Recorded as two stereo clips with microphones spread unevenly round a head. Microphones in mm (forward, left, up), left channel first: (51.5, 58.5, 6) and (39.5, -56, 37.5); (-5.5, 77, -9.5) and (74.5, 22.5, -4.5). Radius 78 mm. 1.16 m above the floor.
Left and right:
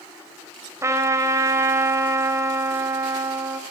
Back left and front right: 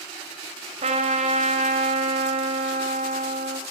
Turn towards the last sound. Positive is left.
turn(degrees=-30)